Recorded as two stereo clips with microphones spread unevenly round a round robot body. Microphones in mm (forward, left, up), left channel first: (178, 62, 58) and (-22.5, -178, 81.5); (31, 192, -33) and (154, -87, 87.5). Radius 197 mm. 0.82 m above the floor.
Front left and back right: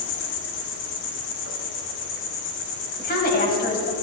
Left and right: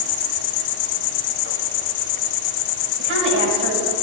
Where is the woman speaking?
10° right, 4.5 m.